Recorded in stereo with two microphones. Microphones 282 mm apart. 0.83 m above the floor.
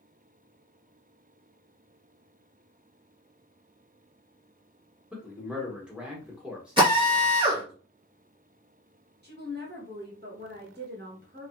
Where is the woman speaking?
35° right (ahead or behind), 1.1 m.